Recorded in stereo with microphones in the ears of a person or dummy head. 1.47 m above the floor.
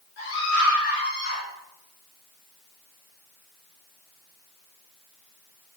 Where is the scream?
70° left (ahead or behind), 6 m; by 1.4 s 80° left, 5.5 m.